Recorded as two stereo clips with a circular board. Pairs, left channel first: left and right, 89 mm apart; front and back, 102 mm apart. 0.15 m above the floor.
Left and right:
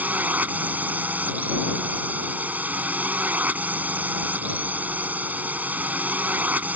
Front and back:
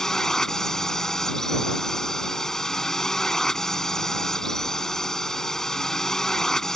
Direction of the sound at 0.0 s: 75° right.